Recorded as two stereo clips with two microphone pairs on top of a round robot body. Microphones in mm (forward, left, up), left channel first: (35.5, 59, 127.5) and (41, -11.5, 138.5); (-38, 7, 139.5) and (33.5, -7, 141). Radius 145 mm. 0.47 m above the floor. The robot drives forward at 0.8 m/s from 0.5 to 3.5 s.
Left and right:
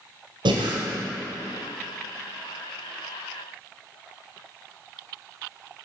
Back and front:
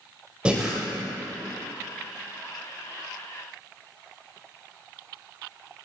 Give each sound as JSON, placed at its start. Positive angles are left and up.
{"t": 0.5, "sound": "breathing", "azimuth_deg": -90, "distance_m": 1.2}